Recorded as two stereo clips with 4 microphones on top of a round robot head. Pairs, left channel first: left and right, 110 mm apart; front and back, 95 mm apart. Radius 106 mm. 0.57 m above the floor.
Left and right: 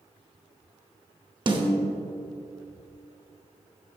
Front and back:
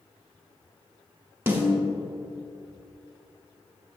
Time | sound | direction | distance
1.5 | a snare drum | 120° right | 1.9 m